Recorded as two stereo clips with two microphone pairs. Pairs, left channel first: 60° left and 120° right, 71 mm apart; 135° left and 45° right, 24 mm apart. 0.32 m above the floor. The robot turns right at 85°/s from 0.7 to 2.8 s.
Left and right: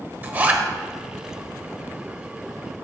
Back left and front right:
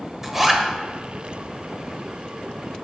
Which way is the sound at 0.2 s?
105° right.